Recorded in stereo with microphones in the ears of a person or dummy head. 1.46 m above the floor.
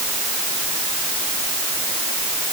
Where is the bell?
No bell in this recording.